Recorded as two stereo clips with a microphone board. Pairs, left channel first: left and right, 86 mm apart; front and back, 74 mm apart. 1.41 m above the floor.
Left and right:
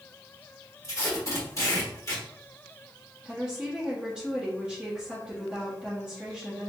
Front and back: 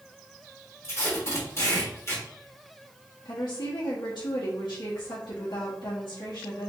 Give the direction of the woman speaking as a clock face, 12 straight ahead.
12 o'clock.